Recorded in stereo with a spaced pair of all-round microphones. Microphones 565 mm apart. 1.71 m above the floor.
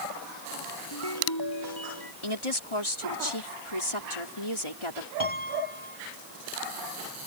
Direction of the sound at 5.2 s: 55° left (ahead or behind).